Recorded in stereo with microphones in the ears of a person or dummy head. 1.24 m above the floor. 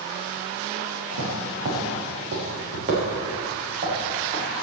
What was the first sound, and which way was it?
Footsteps, 75° right (ahead or behind).